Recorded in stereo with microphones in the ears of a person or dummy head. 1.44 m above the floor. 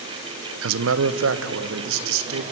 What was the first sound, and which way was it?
A man speaking, 70° right (ahead or behind).